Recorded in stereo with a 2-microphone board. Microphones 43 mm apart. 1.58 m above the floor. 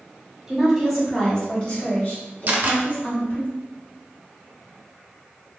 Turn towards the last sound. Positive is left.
turn(degrees=-45)  # may be behind; listen again after turning